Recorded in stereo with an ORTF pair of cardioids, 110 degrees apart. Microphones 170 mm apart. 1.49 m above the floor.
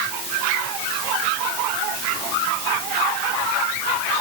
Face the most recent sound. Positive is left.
No sound to turn to.